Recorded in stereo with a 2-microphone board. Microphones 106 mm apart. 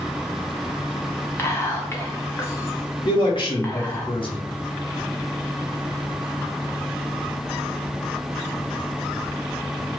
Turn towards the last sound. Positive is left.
turn(degrees=50)  # may be behind; listen again after turning